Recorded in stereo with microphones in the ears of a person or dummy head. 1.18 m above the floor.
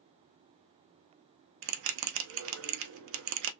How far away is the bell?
About 0.5 m.